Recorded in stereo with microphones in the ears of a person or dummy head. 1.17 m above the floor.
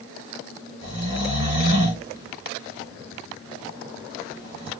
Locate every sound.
0.8 s snoring: 35° right (ahead or behind), 1.8 m